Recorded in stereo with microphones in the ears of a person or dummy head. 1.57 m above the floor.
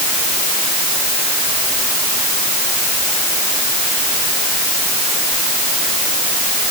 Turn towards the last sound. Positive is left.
No sound to turn to.